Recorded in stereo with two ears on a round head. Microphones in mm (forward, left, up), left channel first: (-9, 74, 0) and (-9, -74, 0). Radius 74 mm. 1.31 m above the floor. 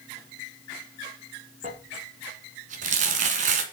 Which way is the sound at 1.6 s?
45° right (ahead or behind).